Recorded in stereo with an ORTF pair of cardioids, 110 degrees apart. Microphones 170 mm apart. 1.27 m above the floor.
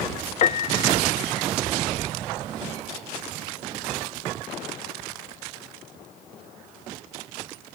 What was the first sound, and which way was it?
A piano, 40° left.